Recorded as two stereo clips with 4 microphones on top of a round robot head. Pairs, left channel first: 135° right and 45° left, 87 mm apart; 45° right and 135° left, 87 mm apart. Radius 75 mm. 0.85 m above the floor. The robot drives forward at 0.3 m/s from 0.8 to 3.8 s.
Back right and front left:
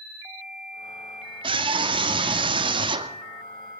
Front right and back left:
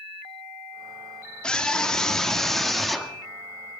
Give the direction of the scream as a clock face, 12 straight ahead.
11 o'clock.